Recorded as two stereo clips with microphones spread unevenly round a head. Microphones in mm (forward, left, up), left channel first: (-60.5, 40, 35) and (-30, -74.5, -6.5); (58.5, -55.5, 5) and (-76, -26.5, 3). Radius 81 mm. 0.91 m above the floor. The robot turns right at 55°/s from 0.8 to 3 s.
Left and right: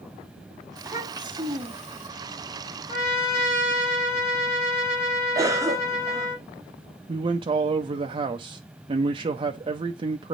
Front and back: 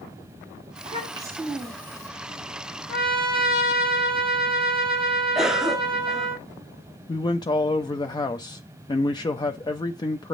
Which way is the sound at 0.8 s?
150° right.